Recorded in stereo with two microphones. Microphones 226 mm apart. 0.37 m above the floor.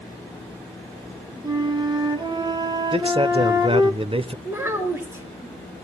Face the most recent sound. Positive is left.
turn(degrees=-10)  # may be behind; listen again after turning